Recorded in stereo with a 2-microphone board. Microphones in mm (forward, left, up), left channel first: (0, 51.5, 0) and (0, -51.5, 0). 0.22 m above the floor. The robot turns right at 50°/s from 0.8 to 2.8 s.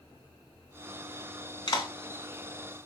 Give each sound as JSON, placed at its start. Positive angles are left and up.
{"t": 1.7, "sound": "a clap", "side_deg": 45, "distance_m": 1.9}